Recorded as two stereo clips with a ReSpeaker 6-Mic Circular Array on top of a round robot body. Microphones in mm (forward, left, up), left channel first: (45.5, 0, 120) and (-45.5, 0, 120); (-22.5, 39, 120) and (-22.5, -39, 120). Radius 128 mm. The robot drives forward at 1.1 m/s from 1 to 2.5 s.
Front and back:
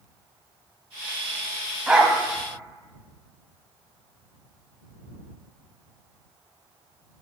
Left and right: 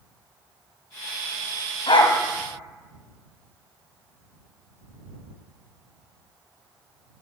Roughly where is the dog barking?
Left.